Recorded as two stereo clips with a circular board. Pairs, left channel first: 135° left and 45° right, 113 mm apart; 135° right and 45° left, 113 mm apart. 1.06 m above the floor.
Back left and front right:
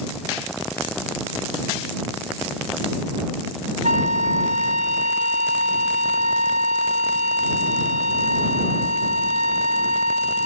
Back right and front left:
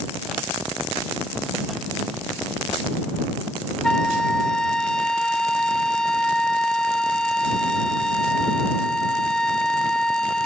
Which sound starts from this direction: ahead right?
A flute, at 3.8 s.